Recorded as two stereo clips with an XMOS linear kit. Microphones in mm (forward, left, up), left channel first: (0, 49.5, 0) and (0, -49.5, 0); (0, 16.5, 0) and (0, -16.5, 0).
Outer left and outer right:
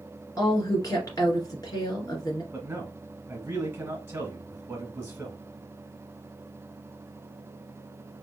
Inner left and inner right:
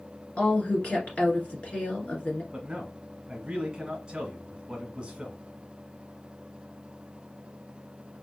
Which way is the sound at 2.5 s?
20° right (ahead or behind).